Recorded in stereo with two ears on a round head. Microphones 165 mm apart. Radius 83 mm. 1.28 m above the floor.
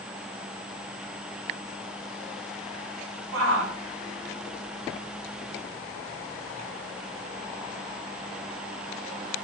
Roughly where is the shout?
Right.